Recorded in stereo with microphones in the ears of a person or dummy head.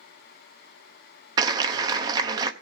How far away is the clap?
About 0.8 m.